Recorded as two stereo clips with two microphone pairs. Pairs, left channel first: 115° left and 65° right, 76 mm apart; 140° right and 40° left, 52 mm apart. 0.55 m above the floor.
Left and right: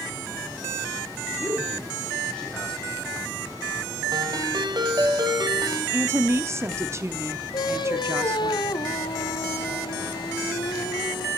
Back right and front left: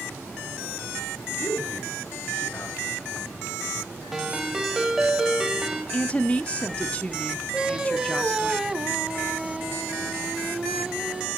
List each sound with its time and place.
1.4 s a man speaking: 170° right, 6.5 m
4.1 s a ringtone: 45° right, 2 m
5.9 s a woman speaking: 90° right, 0.8 m
7.5 s singing: 110° left, 0.9 m